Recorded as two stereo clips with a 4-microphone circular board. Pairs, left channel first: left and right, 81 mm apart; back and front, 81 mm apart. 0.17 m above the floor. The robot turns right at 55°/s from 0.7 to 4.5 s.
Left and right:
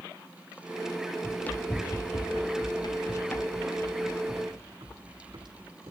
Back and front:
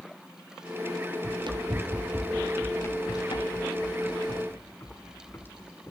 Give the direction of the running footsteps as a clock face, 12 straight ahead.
12 o'clock.